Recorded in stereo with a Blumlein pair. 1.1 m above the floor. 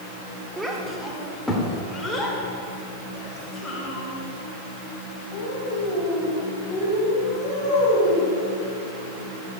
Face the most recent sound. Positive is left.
turn(degrees=25)